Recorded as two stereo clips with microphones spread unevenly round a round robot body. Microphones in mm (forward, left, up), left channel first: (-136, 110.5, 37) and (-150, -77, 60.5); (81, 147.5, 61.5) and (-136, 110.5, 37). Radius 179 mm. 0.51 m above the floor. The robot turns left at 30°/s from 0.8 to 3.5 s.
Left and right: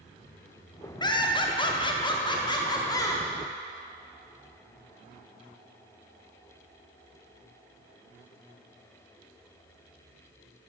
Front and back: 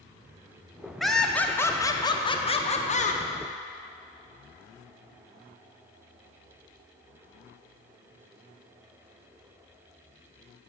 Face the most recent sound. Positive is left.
turn(degrees=35)